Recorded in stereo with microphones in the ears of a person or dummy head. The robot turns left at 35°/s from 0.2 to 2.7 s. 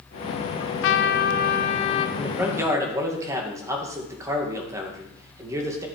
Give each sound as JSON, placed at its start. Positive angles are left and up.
{"t": 0.6, "sound": "a trumpet", "azimuth_deg": 85, "distance_m": 0.8}
{"t": 2.2, "sound": "a man speaking", "side_deg": 0, "distance_m": 2.0}